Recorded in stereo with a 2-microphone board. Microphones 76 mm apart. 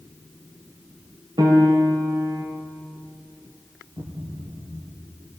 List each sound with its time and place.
1.4 s a piano: 80° right, 4.5 m
4.0 s a thud: 55° right (ahead or behind), 4 m